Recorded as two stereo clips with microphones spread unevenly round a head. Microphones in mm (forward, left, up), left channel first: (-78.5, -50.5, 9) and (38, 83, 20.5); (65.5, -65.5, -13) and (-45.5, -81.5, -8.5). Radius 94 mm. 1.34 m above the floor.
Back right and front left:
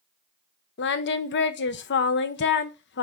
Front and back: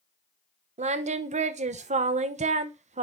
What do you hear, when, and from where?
0.8 s singing: 155° right, 0.8 m